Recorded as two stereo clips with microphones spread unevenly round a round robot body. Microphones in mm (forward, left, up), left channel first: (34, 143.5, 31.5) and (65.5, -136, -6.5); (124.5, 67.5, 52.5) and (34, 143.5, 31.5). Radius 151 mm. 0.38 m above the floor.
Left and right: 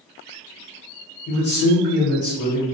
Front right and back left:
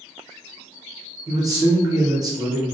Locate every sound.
1.3 s a man speaking: 150° left, 1.0 m; by 2.6 s 100° left, 1.2 m